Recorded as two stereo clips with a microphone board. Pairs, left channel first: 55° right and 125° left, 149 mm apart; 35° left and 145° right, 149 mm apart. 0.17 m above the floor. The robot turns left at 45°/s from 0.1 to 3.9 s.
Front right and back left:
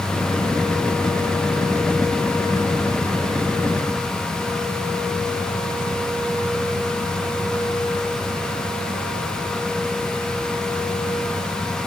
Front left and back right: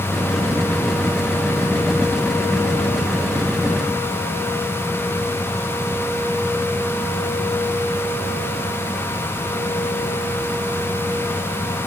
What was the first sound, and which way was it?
Only background noise.